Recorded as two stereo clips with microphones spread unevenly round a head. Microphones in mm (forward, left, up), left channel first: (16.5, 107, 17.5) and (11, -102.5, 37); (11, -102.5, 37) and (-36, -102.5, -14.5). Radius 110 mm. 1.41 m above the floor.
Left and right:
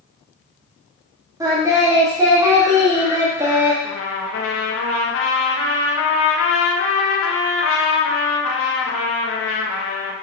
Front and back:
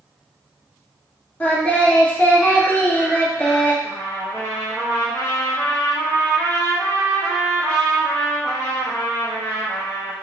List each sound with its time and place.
1.4 s singing: 20° right, 1.6 m
3.8 s a trumpet: 65° left, 1.4 m